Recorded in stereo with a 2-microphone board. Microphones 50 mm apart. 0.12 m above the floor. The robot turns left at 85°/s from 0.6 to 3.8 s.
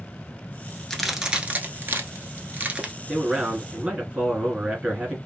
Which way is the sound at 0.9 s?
10° left (ahead or behind).